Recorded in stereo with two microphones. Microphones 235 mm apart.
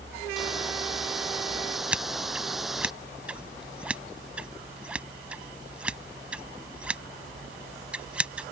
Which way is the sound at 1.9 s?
5° right (ahead or behind).